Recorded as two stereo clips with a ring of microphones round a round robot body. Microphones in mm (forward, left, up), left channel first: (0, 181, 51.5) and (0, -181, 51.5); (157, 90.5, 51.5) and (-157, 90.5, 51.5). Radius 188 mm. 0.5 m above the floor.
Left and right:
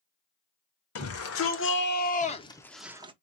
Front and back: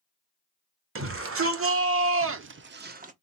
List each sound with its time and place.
0.9 s a shout: 135° left, 1.9 m; by 3.1 s 145° right, 0.9 m